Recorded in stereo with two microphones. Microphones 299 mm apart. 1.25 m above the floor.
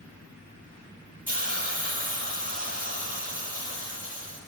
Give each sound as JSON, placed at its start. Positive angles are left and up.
{"t": 1.3, "sound": "a hiss", "side_deg": -30, "distance_m": 2.0}